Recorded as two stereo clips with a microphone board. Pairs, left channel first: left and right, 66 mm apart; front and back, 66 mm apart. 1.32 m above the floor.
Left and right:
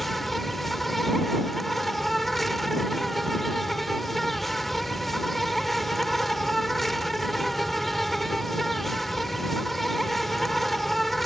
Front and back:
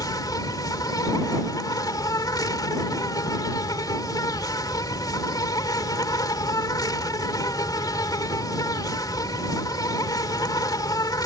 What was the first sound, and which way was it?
An insect, straight ahead.